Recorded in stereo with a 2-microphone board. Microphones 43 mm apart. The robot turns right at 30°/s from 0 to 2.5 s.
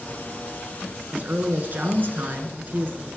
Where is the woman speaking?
120° right, 1.5 m; by 3.1 s 80° right, 1.5 m.